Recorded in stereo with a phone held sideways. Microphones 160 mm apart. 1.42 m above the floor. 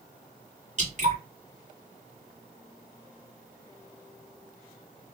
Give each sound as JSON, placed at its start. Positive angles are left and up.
{"t": 0.8, "sound": "dripping", "side_deg": -50, "distance_m": 1.9}